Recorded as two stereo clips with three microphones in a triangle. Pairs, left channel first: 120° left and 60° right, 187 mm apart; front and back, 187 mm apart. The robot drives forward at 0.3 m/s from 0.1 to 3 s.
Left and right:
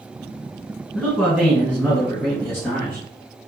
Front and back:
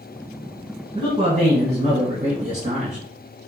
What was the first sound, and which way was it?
A man speaking, 165° right.